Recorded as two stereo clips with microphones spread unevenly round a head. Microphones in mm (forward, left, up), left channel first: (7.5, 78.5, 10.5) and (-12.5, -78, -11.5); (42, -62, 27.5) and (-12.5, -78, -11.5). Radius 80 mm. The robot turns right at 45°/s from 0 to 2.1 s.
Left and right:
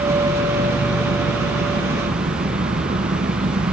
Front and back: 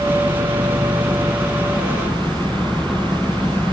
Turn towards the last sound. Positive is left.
turn(degrees=-55)